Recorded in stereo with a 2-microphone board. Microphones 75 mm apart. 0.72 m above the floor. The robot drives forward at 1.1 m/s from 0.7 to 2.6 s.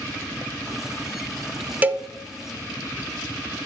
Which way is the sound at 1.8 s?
20° right (ahead or behind).